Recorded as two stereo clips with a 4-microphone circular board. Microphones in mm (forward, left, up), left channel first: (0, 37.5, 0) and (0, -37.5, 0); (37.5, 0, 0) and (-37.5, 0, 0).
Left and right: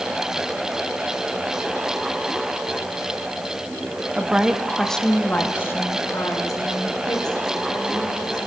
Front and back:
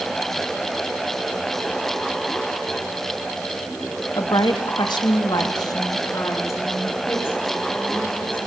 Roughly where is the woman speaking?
Ahead.